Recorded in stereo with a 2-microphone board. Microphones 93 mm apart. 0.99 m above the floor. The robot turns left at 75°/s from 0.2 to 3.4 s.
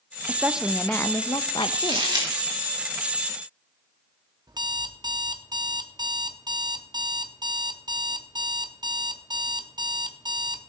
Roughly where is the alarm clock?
Right.